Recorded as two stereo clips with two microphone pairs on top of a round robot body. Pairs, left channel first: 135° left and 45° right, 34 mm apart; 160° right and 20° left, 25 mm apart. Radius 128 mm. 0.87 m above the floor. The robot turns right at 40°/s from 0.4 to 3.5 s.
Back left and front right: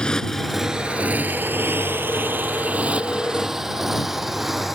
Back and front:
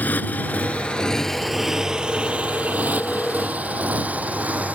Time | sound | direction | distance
0.0 | a motorcycle | 160° right | ?